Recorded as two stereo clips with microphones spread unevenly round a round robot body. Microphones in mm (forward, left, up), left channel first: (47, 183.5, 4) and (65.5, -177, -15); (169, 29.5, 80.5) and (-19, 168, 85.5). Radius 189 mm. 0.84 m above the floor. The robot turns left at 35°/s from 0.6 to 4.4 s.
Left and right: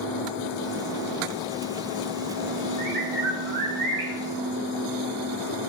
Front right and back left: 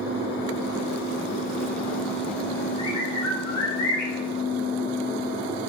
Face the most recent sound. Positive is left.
turn(degrees=-75)